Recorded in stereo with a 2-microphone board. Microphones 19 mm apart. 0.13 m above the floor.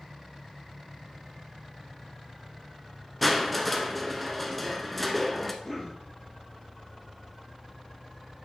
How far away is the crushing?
About 1.0 m.